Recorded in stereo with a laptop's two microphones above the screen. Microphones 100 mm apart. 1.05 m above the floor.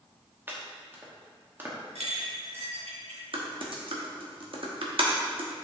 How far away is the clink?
About 1.9 m.